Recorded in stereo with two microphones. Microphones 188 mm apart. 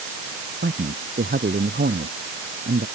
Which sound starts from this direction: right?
A man speaking, at 0.6 s.